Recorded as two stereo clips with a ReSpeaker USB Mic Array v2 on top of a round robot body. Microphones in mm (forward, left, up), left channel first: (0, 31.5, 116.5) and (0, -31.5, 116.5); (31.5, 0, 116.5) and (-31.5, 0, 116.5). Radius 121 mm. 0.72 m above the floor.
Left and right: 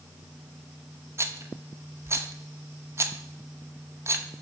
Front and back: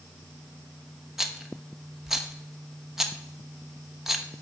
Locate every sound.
1.2 s a rattle: 95° right, 1.1 m